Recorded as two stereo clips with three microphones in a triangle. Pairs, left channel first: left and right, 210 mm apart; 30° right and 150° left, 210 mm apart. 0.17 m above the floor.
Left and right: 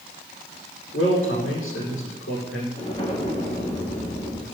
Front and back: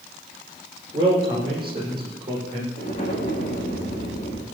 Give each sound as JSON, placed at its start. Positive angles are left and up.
{"t": 0.9, "sound": "a man speaking", "azimuth_deg": 85, "distance_m": 8.0}
{"t": 2.8, "sound": "an explosion", "azimuth_deg": 30, "distance_m": 4.0}